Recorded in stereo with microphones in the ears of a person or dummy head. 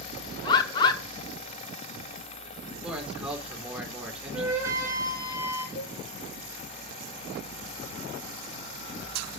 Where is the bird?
25° left (ahead or behind), 1.3 m.